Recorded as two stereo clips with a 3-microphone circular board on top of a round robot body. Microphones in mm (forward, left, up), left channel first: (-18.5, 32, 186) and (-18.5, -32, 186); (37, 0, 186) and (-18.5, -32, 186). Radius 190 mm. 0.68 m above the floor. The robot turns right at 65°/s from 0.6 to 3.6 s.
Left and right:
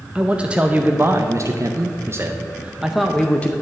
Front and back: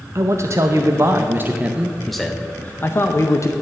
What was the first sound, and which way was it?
A man speaking, 155° right.